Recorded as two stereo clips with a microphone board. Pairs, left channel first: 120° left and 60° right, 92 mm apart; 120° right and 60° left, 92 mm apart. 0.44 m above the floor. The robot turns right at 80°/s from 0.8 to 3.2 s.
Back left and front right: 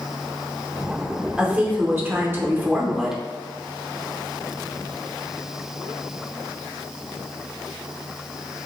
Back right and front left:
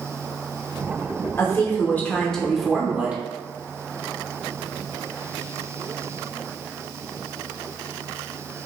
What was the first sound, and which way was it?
A woman speaking, 125° right.